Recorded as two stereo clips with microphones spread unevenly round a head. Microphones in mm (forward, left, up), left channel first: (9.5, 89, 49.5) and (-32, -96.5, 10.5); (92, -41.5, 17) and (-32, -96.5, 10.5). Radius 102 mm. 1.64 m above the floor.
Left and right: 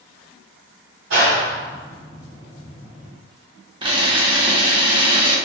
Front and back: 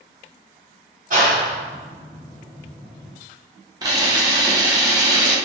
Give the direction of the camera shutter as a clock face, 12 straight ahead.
5 o'clock.